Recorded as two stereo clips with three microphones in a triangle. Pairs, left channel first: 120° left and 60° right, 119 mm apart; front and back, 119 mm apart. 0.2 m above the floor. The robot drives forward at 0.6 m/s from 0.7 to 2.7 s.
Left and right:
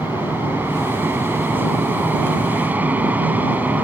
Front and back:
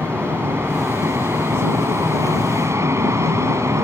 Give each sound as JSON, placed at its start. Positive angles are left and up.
{"t": 0.0, "sound": "an aircraft", "azimuth_deg": -125}